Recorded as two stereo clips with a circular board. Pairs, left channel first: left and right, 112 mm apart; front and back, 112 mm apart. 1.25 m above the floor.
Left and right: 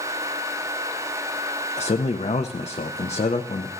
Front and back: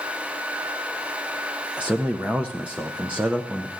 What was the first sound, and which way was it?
A man speaking, 100° left.